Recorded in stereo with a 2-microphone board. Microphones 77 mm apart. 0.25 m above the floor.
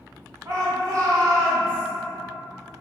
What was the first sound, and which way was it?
A shout, 35° right (ahead or behind).